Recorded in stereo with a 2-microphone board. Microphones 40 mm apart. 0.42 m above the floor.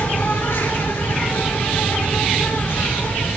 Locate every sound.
0.0 s an insect: 85° left, 3 m